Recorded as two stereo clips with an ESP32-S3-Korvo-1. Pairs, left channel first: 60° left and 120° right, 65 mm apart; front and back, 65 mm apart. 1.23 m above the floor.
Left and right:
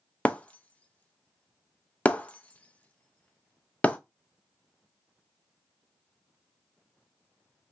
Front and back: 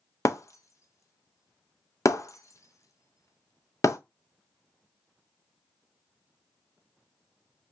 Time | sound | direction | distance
0.2 | breaking glass | straight ahead | 0.5 m